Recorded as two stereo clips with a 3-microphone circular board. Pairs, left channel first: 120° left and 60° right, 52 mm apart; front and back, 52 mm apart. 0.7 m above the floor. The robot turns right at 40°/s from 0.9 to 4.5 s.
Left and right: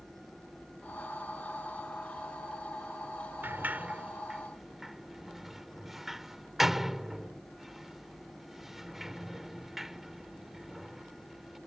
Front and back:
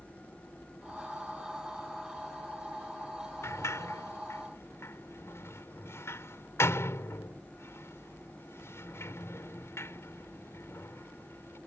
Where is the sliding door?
20° right; by 11.6 s 25° left.